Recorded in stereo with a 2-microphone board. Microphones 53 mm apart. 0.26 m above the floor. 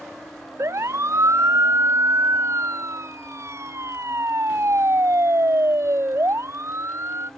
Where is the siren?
65° right (ahead or behind); by 7.3 s 60° right (ahead or behind).